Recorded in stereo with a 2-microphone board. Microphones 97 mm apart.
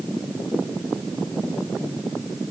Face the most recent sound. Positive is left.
No sound to turn to.